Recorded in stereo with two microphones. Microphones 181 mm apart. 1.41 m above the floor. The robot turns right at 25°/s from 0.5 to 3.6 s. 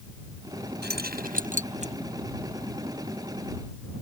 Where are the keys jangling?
65° right (ahead or behind); by 1.9 s 35° right (ahead or behind).